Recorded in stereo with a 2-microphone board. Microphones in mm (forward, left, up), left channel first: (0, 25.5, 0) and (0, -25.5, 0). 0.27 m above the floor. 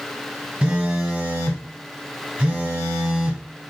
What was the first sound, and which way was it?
A phone buzzing, 15° right (ahead or behind).